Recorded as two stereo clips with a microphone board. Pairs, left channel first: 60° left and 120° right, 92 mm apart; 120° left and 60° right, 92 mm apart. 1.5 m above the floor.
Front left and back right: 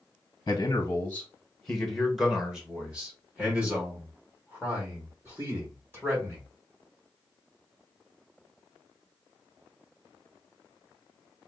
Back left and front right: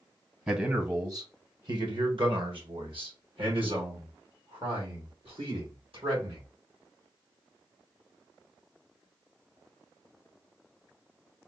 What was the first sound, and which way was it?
A man speaking, 15° left.